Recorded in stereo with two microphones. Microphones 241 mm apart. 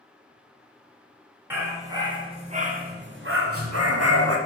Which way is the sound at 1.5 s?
10° right (ahead or behind).